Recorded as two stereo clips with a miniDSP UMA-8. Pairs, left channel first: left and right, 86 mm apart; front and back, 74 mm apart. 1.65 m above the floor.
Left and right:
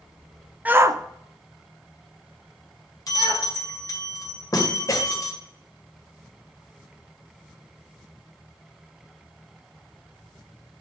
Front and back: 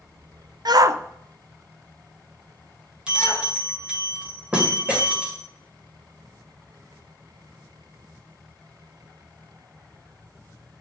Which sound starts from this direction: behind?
A shout, at 0.7 s.